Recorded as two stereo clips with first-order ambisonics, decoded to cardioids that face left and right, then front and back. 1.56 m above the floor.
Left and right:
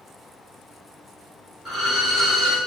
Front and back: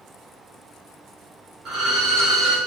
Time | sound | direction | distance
1.6 | a violin | 160° left | 1.2 m